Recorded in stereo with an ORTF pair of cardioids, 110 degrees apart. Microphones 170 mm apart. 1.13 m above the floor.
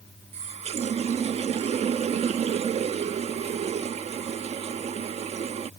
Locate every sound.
0.3 s a running tap: 40° right